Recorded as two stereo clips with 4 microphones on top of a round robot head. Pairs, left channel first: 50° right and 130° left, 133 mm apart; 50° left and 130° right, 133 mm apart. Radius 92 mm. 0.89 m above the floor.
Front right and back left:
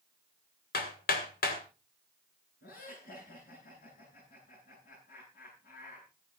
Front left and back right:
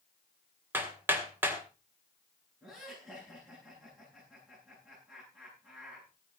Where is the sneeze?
No sneeze in this recording.